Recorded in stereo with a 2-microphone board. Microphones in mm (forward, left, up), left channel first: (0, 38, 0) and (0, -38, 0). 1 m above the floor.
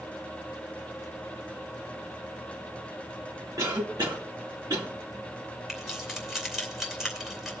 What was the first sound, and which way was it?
A cough, 60° right (ahead or behind).